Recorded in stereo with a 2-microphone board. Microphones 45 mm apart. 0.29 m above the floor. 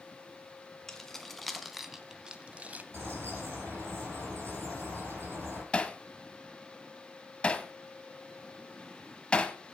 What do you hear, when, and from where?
0.9 s keys jangling: 10° left (ahead or behind), 1.8 m; by 2.8 s 40° right (ahead or behind), 1.0 m
2.9 s a bird: 65° right (ahead or behind), 6 m
5.7 s hammering: 25° left (ahead or behind), 1.2 m